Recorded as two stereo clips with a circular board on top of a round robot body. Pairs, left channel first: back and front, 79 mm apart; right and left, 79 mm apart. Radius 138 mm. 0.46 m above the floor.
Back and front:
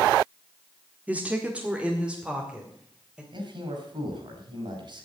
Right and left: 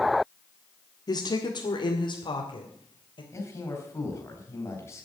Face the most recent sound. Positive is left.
turn(degrees=-30)